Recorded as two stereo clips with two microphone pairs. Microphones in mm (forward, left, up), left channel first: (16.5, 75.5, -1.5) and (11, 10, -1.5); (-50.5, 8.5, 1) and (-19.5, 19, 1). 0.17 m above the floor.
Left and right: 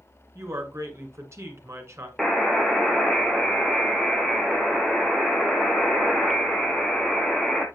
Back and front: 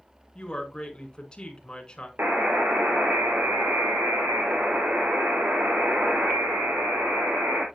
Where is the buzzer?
5° left, 1.3 m.